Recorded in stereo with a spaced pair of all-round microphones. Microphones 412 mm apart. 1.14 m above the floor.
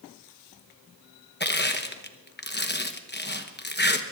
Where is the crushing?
25° left (ahead or behind), 1.0 m.